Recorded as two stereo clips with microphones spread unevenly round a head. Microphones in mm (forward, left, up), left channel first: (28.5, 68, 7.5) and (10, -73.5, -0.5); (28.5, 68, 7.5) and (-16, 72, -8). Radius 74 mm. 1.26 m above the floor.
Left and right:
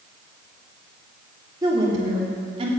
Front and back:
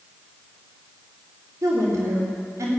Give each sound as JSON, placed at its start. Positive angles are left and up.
{"t": 1.6, "sound": "a woman speaking", "azimuth_deg": -165, "distance_m": 3.5}